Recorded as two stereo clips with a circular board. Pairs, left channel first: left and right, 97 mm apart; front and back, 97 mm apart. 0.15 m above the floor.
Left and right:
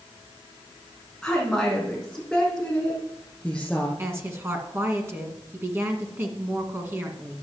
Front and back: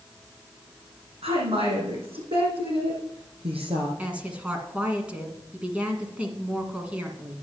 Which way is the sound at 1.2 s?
Straight behind.